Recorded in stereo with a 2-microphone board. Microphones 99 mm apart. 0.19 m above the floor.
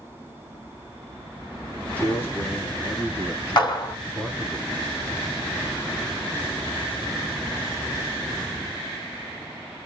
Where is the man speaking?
20° left (ahead or behind), 1.7 m; by 4.6 s 15° left (ahead or behind), 1.9 m.